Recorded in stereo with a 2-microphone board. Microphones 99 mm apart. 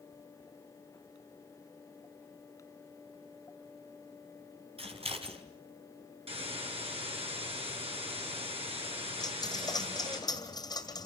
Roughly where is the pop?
No pop in this recording.